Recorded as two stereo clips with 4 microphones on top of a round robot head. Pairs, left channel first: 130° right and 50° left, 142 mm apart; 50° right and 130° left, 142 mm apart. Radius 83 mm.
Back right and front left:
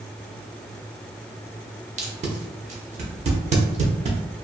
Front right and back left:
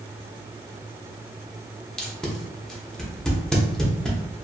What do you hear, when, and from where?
2.0 s tape being pulled: 40° left, 0.8 m